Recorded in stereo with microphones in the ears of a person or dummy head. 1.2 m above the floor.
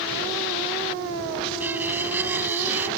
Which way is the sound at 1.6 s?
10° right (ahead or behind).